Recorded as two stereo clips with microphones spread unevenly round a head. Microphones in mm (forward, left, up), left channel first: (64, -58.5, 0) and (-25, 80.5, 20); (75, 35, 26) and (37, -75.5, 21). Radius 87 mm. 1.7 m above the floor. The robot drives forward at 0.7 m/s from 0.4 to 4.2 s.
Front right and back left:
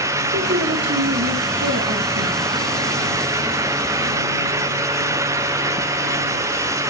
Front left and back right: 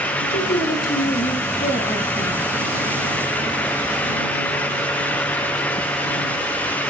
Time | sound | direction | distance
0.3 | a woman speaking | 95° left | 2 m